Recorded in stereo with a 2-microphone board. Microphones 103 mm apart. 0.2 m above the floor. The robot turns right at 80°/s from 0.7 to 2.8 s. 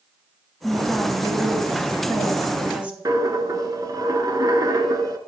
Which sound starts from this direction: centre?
A woman speaking, at 0.6 s.